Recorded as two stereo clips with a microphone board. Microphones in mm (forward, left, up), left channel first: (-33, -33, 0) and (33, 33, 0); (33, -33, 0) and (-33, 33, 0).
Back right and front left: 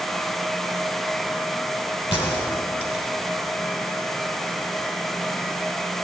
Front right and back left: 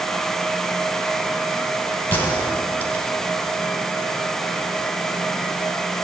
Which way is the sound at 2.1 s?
110° right.